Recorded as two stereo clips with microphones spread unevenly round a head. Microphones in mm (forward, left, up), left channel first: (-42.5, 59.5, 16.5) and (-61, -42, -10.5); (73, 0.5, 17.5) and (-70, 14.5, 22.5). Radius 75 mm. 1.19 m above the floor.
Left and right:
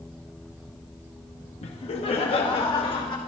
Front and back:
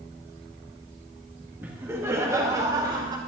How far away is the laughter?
About 1.7 m.